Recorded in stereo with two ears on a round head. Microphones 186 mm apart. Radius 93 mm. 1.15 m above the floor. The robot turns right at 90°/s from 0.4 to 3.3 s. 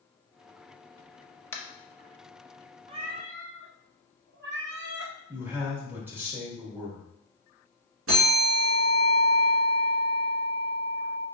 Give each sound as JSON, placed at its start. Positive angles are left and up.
{"t": 1.5, "sound": "tapping", "side_deg": 10, "distance_m": 0.6}
{"t": 2.9, "sound": "a cat meowing", "azimuth_deg": -150, "distance_m": 0.8}
{"t": 5.3, "sound": "a man speaking", "side_deg": -10, "distance_m": 1.7}
{"t": 8.1, "sound": "a bell", "side_deg": -70, "distance_m": 1.6}